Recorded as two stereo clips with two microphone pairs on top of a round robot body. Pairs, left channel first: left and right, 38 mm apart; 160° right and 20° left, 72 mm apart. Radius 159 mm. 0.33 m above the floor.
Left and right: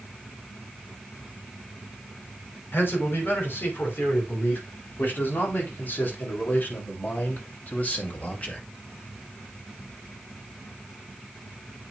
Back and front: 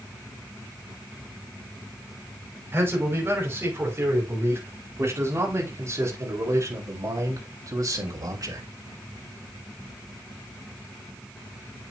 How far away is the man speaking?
About 5.5 m.